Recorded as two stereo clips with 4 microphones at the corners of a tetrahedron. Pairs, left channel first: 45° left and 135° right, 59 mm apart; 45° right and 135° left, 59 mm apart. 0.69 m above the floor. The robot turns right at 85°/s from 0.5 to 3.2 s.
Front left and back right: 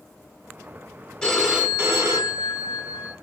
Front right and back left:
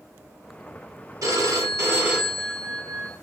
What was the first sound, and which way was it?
A phone ringing, 125° left.